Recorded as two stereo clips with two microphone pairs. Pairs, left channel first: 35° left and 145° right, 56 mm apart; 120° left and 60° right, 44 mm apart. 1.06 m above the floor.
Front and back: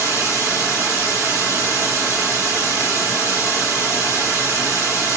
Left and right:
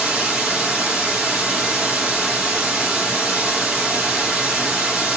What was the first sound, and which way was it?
Running water, 135° right.